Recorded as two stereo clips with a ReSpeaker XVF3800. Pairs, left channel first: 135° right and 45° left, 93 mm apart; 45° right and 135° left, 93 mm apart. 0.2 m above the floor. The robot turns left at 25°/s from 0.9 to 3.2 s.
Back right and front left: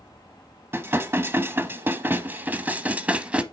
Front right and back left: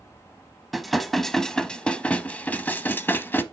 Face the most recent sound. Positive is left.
turn(degrees=-10)